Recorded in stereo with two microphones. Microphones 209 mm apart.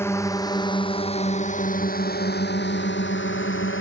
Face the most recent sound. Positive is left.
turn(degrees=75)  # may be behind; listen again after turning